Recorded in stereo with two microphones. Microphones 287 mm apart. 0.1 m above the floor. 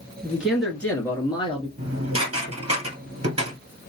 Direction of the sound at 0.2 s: 5° right (ahead or behind).